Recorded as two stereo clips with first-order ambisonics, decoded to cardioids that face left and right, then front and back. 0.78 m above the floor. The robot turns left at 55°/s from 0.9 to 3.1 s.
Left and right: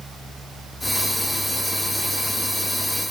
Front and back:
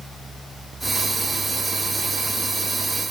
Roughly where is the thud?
No thud in this recording.